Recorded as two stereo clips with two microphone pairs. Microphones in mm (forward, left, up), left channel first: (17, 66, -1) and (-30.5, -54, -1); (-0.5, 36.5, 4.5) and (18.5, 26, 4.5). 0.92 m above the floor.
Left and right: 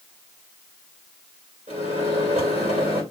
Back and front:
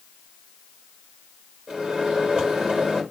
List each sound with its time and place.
1.7 s a microwave: 80° right, 3 m